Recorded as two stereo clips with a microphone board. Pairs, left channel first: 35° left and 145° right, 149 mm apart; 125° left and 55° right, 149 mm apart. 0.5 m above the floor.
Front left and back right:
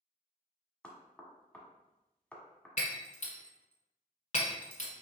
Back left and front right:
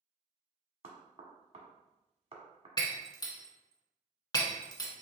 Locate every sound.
0.8 s knocking: 45° right, 1.3 m
2.8 s breaking glass: 65° left, 1.2 m